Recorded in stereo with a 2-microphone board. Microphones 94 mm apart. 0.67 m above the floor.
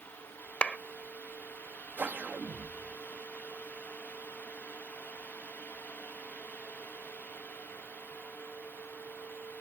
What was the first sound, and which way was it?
A clap, 10° left (ahead or behind).